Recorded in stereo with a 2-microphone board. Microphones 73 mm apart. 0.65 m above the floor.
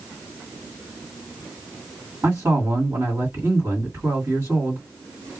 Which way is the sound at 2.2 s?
35° right (ahead or behind).